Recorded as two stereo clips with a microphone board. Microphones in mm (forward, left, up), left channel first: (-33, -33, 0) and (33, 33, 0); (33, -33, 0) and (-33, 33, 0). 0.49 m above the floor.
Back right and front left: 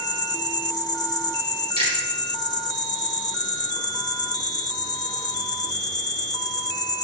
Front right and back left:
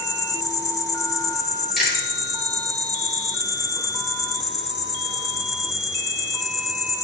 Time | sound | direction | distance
0.0 | an insect | 95° right | 0.8 m
1.8 | chewing | 45° left | 4 m